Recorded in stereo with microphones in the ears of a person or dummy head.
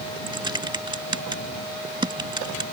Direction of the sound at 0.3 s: 25° right (ahead or behind).